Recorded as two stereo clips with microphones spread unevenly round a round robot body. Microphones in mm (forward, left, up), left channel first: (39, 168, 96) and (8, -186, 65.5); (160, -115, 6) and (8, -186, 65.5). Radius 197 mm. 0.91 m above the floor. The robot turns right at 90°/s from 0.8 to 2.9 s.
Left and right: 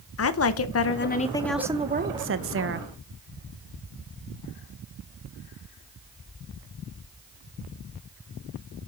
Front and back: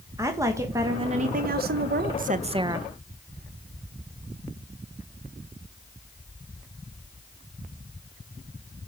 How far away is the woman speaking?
About 1.0 m.